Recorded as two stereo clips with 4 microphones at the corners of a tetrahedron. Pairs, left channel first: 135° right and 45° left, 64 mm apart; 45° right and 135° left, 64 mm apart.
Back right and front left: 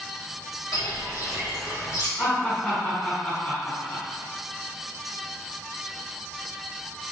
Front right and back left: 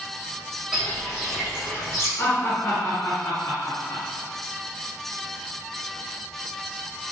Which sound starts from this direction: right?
Laughter, at 2.2 s.